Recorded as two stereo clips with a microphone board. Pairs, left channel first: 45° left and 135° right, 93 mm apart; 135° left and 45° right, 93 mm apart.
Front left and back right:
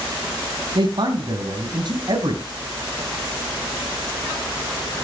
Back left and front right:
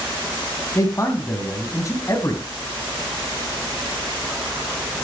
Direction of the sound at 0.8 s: 170° right.